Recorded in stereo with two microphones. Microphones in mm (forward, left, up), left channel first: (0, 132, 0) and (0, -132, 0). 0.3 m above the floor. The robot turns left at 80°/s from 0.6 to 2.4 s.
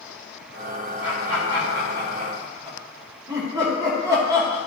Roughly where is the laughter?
Right.